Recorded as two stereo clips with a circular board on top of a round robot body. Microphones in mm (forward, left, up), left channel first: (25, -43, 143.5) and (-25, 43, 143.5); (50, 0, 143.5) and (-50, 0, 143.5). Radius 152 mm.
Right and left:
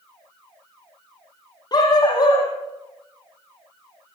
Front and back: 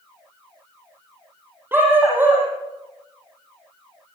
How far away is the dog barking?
About 8 m.